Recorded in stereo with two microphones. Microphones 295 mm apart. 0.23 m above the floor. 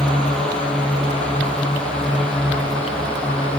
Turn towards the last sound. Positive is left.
turn(degrees=5)  # may be behind; listen again after turning